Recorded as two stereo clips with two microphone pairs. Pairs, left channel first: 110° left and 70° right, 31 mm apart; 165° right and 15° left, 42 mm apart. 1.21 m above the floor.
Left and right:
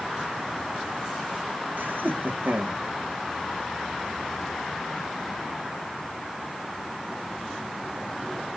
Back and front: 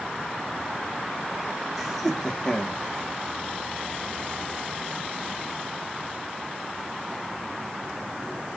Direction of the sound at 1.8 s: 70° right.